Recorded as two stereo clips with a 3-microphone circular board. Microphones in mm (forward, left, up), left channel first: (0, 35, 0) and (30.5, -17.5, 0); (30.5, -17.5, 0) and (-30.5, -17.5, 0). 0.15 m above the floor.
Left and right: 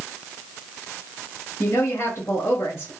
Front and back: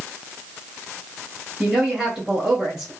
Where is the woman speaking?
100° left, 2 m.